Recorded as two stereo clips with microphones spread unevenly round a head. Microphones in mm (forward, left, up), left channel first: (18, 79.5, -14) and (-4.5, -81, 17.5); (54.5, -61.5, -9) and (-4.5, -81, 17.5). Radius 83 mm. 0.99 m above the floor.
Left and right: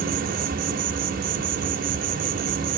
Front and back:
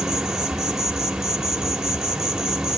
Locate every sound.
0.0 s an insect: 100° right, 1.1 m